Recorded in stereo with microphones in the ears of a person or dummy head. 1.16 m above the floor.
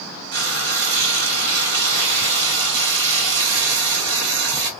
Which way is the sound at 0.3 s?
55° right (ahead or behind).